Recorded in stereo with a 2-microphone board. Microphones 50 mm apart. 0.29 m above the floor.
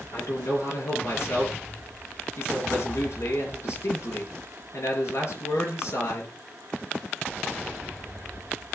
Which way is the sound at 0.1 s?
65° left (ahead or behind).